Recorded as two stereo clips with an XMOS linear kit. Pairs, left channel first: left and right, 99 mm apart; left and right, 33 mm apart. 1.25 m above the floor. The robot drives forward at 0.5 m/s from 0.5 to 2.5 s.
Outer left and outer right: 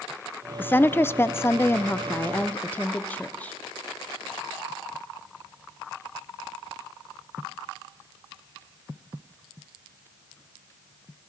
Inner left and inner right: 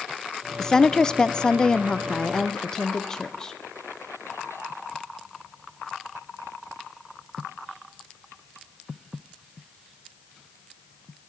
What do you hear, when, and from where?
0.6 s a woman speaking: 20° left (ahead or behind), 0.7 m